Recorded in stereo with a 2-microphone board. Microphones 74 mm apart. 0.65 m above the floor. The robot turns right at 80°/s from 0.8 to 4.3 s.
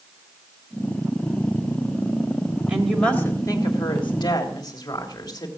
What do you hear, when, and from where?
2.7 s a woman speaking: 15° right, 3 m; by 5.5 s 115° left, 3 m